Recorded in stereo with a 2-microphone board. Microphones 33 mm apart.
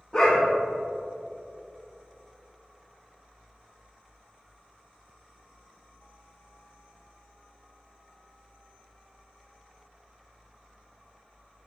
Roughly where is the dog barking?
Left.